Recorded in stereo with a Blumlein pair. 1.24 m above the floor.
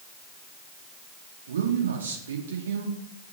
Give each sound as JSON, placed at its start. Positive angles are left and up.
{"t": 1.5, "sound": "a man speaking", "azimuth_deg": -65, "distance_m": 2.0}